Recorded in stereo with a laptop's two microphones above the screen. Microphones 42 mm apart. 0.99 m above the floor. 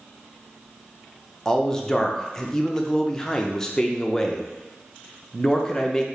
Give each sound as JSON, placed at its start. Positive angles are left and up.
{"t": 1.4, "sound": "a man speaking", "side_deg": 15, "distance_m": 0.5}